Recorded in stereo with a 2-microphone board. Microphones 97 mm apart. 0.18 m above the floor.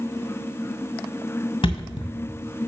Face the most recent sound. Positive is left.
turn(degrees=55)  # may be behind; listen again after turning